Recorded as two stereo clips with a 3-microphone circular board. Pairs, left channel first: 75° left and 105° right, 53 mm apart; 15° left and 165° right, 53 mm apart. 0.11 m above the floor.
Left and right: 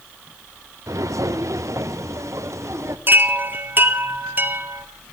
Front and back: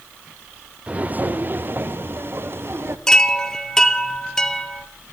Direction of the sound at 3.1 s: 65° right.